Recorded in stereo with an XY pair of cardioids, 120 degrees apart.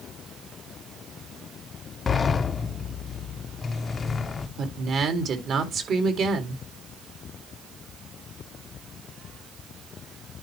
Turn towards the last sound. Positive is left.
turn(degrees=-55)